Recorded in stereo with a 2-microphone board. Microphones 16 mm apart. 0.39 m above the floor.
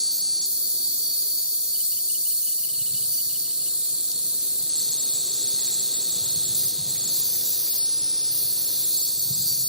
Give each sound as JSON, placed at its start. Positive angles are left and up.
{"t": 0.0, "sound": "an insect", "side_deg": -70, "distance_m": 1.4}